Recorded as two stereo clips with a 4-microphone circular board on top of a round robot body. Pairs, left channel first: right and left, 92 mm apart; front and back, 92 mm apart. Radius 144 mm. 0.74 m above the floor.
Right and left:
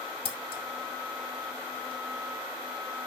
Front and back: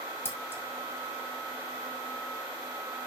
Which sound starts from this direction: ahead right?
Scissors, at 0.2 s.